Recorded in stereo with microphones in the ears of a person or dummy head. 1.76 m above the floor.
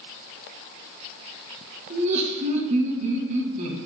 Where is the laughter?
40° right (ahead or behind), 2.5 m.